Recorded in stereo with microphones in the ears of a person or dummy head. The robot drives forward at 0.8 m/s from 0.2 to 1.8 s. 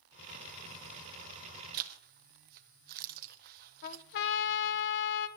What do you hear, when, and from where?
1.7 s a zipper: 55° right (ahead or behind), 1.0 m
3.8 s a trumpet: 60° left (ahead or behind), 1.3 m